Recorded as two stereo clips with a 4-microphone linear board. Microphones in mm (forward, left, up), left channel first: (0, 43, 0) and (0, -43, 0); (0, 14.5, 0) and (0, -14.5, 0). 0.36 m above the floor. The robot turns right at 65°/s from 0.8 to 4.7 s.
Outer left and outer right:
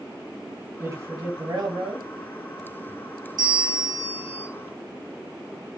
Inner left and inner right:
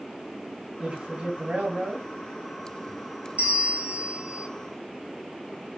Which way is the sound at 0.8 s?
145° right.